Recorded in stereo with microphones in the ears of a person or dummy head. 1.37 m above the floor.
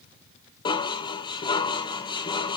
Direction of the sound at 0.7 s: 25° left (ahead or behind).